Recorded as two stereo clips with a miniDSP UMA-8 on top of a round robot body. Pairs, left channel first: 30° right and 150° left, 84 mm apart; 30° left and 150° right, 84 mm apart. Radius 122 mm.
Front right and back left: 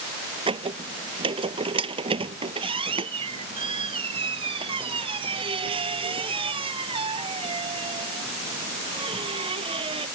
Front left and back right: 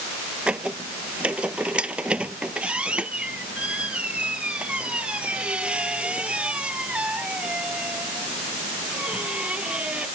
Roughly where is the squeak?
Behind left.